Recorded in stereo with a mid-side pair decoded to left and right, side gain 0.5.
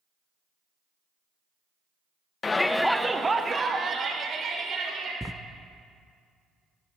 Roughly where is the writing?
Ahead.